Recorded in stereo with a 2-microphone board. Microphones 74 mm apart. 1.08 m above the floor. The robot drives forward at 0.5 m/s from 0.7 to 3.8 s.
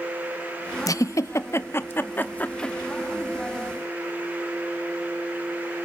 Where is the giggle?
55° left (ahead or behind), 0.5 m; by 2.8 s 20° left (ahead or behind), 1.2 m.